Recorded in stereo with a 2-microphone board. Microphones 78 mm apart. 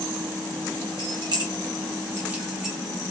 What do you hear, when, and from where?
1.0 s keys jangling: 70° right (ahead or behind), 0.9 m; by 2.8 s 5° right (ahead or behind), 0.9 m